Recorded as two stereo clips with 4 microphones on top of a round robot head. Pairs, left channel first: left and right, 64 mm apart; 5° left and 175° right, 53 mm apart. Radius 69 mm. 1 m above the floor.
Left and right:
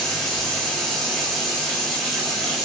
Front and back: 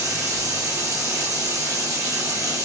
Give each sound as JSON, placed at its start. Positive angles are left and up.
{"t": 0.0, "sound": "running water", "azimuth_deg": 175, "distance_m": 1.2}